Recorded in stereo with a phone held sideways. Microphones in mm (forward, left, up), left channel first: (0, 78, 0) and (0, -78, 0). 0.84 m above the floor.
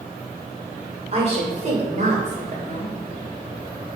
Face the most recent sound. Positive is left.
turn(degrees=-55)  # may be behind; listen again after turning